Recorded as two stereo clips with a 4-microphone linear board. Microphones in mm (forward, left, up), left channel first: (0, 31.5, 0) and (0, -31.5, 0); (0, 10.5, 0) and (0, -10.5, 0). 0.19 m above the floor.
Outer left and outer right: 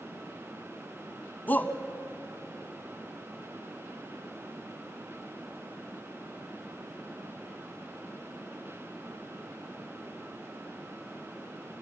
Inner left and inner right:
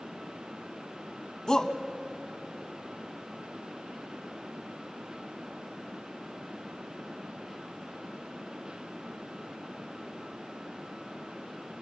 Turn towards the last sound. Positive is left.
turn(degrees=30)  # may be behind; listen again after turning